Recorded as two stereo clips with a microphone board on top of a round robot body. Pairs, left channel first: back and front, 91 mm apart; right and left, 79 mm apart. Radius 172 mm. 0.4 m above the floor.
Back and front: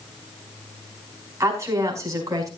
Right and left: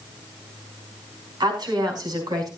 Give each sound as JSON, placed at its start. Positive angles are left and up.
{"t": 1.4, "sound": "a woman speaking", "azimuth_deg": 60, "distance_m": 5.0}